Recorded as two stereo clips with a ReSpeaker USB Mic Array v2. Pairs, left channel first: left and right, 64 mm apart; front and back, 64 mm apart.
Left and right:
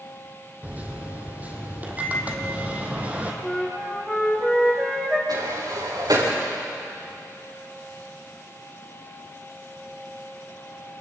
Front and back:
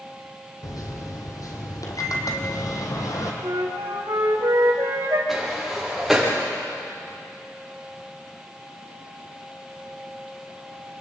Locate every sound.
0.6 s a microwave: 25° right, 3 m
3.4 s a flute: 170° left, 4.5 m
5.3 s a sliding door: 95° right, 6.5 m